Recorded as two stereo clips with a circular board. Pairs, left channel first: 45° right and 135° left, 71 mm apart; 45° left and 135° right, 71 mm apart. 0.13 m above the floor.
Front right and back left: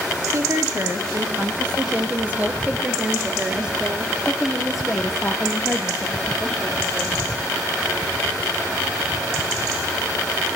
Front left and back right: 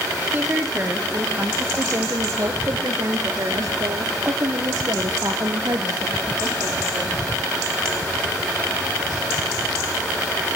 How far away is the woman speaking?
About 3 m.